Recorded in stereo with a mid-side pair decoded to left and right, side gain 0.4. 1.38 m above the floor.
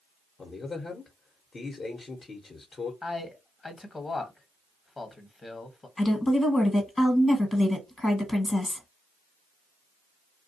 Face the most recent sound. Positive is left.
turn(degrees=30)